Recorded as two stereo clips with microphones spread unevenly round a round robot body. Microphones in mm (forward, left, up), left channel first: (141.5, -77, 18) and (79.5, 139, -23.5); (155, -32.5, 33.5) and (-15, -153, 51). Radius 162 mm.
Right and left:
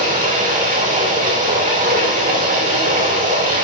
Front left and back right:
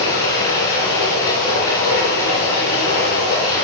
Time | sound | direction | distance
0.0 | running water | 50° left | 6 m